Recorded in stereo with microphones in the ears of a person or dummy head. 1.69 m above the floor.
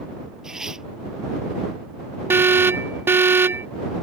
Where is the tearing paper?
5° right (ahead or behind).